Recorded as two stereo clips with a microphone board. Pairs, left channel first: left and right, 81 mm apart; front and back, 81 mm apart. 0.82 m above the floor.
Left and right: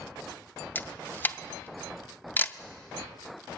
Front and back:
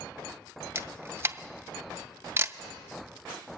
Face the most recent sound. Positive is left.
turn(degrees=140)